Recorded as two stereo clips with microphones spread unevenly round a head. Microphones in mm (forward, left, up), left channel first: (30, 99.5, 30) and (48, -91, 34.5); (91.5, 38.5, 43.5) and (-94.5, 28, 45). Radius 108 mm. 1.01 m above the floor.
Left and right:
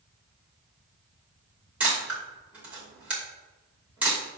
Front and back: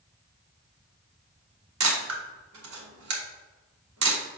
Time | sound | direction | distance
1.8 | a camera shutter | 170° right | 2 m